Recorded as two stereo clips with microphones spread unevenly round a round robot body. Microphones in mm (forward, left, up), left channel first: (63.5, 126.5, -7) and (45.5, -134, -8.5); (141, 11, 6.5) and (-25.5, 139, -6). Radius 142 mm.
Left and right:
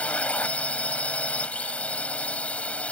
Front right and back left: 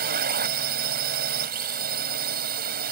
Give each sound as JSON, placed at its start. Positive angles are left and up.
{"t": 0.0, "sound": "a drone", "azimuth_deg": 170}